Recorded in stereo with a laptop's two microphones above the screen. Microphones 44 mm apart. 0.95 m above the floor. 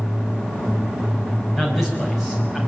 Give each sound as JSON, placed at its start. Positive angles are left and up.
{"t": 1.6, "sound": "a man speaking", "side_deg": -5, "distance_m": 6.0}